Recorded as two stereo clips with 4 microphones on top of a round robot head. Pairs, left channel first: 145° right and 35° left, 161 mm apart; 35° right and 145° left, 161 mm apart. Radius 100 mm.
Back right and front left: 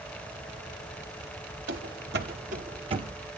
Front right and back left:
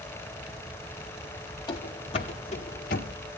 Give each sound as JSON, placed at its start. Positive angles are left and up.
{"t": 1.7, "sound": "running footsteps", "azimuth_deg": 30, "distance_m": 1.2}